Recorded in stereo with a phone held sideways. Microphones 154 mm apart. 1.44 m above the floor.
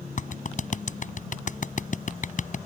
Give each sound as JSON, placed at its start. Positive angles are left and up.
{"t": 0.2, "sound": "a clap", "side_deg": 55}